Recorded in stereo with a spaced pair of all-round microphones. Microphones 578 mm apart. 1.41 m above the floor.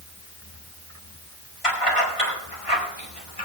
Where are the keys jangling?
75° left (ahead or behind), 8 m; by 3.5 s 85° left, 7 m.